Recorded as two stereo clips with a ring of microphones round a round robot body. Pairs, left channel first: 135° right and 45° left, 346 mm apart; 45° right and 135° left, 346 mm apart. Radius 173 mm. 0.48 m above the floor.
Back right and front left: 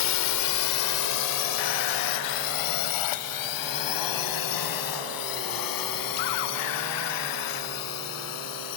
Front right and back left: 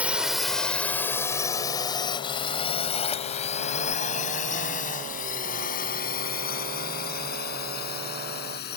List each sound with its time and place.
0.0 s a drone: 140° right; by 8.8 s 105° right